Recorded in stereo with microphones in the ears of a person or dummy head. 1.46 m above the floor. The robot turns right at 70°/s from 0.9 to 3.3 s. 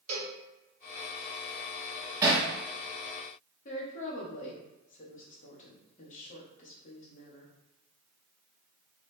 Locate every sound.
0.1 s a cowbell: 45° right (ahead or behind), 1.9 m
2.2 s hammering: 20° right (ahead or behind), 1.4 m; by 2.5 s 35° right (ahead or behind), 1.4 m
3.6 s a woman speaking: 45° left (ahead or behind), 1.0 m